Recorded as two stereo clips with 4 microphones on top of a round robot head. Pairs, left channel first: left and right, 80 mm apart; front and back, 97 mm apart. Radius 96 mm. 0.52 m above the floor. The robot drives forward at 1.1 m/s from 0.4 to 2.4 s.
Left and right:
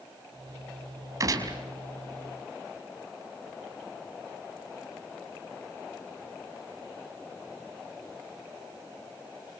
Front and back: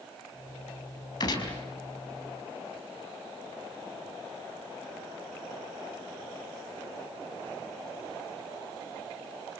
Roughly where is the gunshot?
Ahead right.